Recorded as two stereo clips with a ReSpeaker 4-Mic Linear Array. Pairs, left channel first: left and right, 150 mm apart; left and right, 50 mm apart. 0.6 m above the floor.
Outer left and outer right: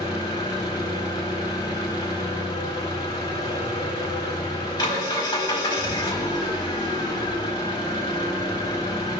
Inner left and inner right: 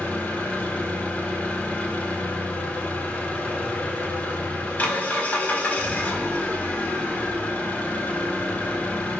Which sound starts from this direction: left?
An engine running, at 0.0 s.